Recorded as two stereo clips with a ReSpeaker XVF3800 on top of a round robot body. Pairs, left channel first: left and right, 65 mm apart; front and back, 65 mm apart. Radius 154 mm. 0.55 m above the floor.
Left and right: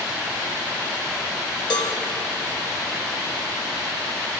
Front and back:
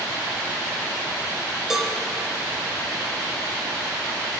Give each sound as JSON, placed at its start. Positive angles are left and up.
{"t": 1.7, "sound": "a cowbell", "azimuth_deg": 95, "distance_m": 1.5}